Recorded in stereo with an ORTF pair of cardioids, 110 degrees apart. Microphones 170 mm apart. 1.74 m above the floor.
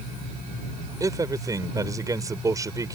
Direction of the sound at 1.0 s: 20° right.